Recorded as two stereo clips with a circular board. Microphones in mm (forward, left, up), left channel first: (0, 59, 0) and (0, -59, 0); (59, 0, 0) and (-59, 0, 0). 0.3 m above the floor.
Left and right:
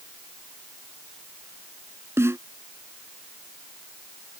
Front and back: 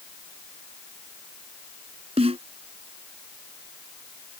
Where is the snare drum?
155° right.